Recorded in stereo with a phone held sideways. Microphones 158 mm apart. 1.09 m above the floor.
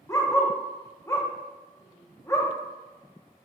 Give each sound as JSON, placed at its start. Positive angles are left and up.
{"t": 0.1, "sound": "a dog barking", "side_deg": 20, "distance_m": 0.5}